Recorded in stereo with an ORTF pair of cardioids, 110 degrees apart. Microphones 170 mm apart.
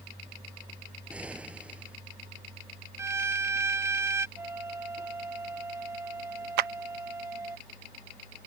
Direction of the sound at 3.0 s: 15° right.